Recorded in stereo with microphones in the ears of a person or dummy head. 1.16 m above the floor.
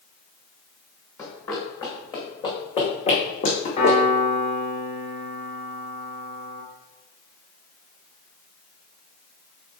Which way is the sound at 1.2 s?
20° left (ahead or behind).